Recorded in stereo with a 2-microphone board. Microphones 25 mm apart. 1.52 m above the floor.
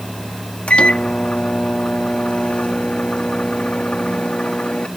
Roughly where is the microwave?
Left.